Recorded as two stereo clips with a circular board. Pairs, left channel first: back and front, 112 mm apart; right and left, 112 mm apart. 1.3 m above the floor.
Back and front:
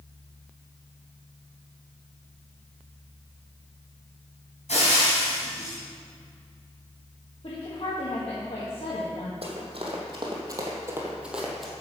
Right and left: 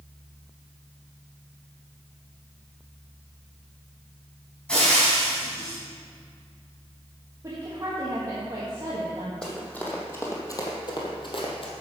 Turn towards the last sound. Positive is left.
turn(degrees=-95)